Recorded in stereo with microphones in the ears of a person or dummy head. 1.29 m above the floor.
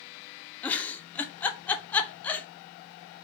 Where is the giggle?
10° left (ahead or behind), 0.5 m.